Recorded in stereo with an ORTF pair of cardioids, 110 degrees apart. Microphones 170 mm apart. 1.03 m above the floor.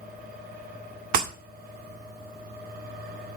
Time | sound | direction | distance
0.0 | a fan | 65° right | 4 m
1.1 | breaking glass | 55° right | 1.8 m